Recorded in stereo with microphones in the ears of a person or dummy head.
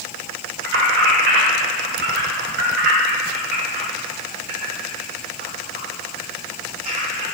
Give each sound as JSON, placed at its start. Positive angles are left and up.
{"t": 0.6, "sound": "keys jangling", "side_deg": -75, "distance_m": 2.0}